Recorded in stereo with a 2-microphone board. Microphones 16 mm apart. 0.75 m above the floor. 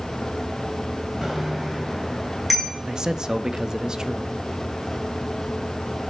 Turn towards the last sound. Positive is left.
turn(degrees=-40)  # may be behind; listen again after turning